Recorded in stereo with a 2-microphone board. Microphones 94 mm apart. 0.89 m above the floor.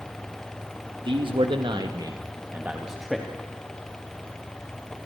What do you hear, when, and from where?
1.1 s a man speaking: 60° right (ahead or behind), 1.7 m; by 3.3 s 5° left (ahead or behind), 1.7 m